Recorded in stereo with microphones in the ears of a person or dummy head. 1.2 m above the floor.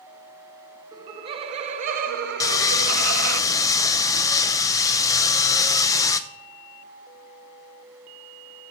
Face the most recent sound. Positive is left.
turn(degrees=15)  # may be behind; listen again after turning